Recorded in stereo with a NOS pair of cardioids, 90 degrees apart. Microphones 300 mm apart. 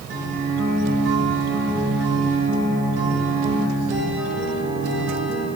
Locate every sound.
0.1 s a guitar: 55° right, 3 m